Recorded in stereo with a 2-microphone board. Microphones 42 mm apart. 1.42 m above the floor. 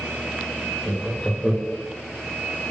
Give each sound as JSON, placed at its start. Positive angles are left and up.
{"t": 0.8, "sound": "laughter", "side_deg": 5, "distance_m": 0.6}